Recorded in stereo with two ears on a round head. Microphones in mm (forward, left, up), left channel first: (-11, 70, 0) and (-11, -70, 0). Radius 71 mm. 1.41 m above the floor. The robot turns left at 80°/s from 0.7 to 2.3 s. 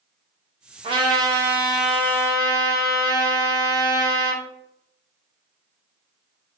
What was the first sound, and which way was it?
A trumpet, 100° right.